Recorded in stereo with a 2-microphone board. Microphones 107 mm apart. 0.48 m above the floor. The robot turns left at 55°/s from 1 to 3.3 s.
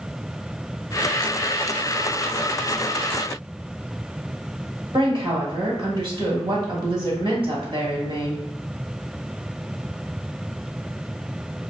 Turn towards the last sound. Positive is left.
turn(degrees=-50)  # may be behind; listen again after turning